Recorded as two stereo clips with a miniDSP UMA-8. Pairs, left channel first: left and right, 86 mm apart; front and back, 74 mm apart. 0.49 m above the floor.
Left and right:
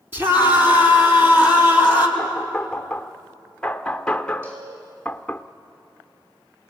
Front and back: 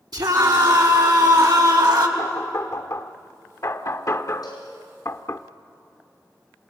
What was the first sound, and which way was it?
A scream, 155° right.